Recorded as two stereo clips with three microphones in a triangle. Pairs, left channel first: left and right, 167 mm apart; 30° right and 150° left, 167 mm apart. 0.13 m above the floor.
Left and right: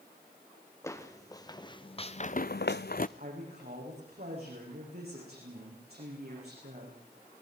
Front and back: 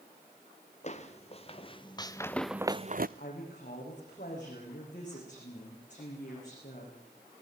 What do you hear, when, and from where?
0.8 s footsteps: 15° left, 3 m; by 3.1 s 125° left, 0.8 m
3.2 s a woman speaking: 70° right, 8.5 m